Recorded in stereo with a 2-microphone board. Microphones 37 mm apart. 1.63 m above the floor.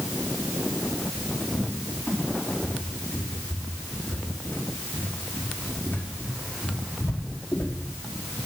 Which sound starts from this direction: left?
A cupboard door, at 1.5 s.